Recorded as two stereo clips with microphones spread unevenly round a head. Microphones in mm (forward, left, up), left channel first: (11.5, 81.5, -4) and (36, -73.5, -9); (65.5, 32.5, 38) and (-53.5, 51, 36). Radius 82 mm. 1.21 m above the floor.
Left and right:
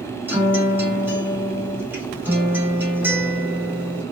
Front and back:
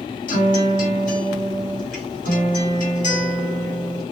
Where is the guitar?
5° right, 1.2 m.